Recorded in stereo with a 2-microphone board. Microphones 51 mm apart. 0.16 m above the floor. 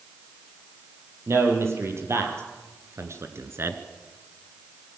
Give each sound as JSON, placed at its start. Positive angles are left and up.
{"t": 1.3, "sound": "a man speaking", "side_deg": -55, "distance_m": 5.0}